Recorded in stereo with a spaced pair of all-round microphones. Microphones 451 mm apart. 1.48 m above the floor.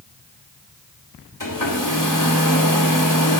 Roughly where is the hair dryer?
Left.